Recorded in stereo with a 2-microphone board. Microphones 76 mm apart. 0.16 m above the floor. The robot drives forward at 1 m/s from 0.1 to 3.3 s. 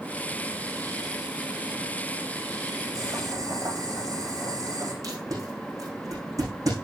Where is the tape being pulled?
50° right (ahead or behind), 7.5 m.